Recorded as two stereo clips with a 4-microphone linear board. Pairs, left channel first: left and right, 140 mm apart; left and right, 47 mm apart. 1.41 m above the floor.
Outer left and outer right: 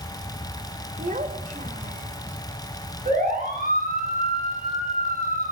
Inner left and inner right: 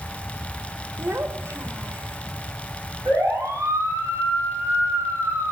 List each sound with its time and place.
1.0 s a child speaking: 60° right (ahead or behind), 2.5 m; by 2.2 s 70° right (ahead or behind), 3.5 m
3.0 s a siren: 70° right (ahead or behind), 10 m